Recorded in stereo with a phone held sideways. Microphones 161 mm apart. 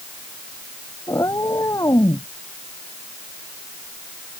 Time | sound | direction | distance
1.1 | a cat meowing | 20° left (ahead or behind) | ?